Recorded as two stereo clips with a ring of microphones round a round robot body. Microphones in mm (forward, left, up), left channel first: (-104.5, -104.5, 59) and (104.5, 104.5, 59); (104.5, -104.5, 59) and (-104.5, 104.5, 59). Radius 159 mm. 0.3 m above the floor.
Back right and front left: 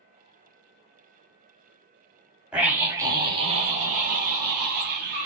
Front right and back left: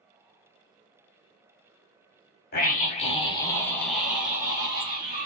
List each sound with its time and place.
2.5 s a scream: 40° right, 1.3 m; by 5.3 s 75° left, 1.5 m